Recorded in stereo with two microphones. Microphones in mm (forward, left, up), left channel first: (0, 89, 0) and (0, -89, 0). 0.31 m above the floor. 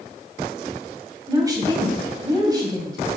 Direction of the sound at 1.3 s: 20° right (ahead or behind).